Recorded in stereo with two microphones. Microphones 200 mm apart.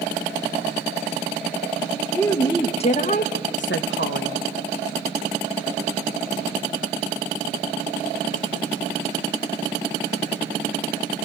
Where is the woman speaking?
10° left (ahead or behind), 1.4 m; by 4.4 s 80° left, 1.4 m.